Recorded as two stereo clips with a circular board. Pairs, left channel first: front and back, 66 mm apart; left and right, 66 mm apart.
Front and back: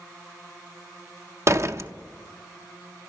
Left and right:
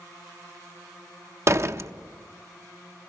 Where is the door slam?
135° right, 0.6 m.